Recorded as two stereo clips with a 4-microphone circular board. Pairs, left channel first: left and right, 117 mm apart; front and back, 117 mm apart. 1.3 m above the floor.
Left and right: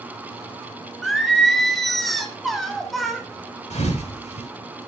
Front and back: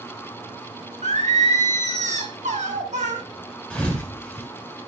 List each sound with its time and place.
1.0 s singing: straight behind, 1.7 m
3.7 s a thud: 80° left, 4 m